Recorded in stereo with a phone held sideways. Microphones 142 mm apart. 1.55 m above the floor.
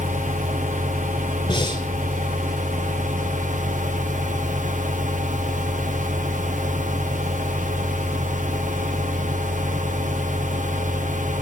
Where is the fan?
65° right (ahead or behind), 1.4 m.